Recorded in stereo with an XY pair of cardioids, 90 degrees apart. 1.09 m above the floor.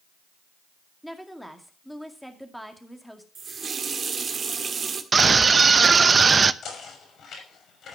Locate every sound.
1.0 s a woman speaking: straight ahead, 2 m
3.4 s a running tap: 45° right, 1.7 m
5.1 s a scream: 40° right, 0.8 m
6.6 s knocking: 70° left, 6 m